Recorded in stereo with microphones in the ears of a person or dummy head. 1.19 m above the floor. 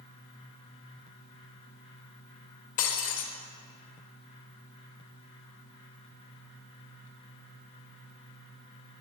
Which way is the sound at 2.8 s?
45° left (ahead or behind).